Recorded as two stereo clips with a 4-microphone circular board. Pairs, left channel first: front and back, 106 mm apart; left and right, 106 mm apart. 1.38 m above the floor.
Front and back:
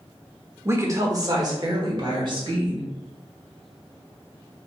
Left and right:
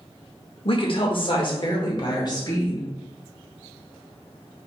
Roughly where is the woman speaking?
Behind left.